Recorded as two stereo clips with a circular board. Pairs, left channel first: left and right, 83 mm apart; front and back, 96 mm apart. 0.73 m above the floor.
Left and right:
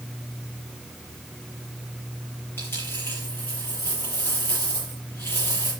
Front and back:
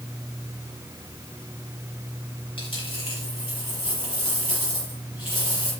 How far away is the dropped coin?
About 6.5 m.